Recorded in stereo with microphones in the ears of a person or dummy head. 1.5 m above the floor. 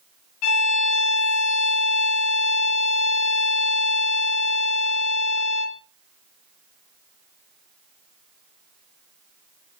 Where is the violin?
80° left, 0.9 m.